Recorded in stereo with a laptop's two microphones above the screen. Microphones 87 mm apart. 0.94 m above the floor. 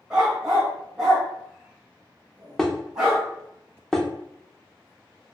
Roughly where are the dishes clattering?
Centre.